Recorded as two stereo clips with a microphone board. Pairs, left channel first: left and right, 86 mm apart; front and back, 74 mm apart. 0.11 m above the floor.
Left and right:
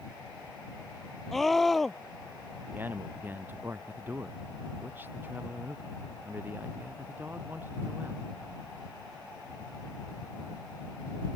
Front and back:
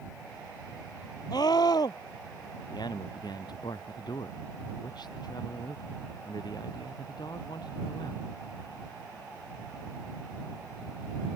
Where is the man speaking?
25° right.